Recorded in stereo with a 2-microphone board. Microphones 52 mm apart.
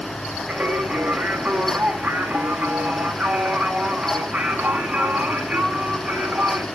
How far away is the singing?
About 1.5 m.